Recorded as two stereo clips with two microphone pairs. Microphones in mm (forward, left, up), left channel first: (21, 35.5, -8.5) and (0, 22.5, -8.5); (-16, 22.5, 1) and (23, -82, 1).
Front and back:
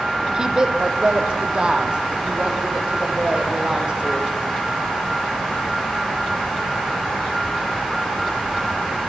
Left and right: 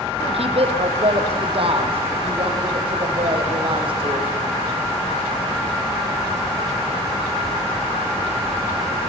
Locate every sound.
0.3 s a woman speaking: 90° right, 5 m; by 4.3 s 105° right, 7.5 m